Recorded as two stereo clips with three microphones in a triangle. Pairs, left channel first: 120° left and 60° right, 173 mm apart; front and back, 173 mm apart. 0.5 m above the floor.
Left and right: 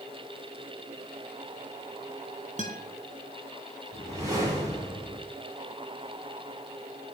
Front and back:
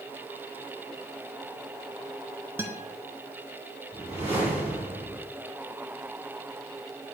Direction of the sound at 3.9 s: 130° right.